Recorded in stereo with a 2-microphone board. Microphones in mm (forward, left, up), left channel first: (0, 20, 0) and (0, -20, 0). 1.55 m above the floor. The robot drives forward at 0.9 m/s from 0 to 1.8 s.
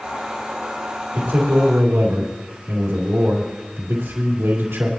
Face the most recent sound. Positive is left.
turn(degrees=-80)